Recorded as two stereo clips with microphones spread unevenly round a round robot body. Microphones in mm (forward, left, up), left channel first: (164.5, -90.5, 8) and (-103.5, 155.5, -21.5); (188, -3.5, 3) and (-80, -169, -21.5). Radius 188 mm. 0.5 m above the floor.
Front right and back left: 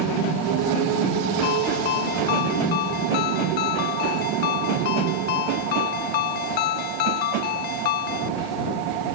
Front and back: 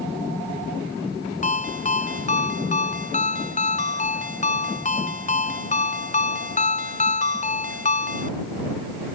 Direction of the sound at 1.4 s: 35° right.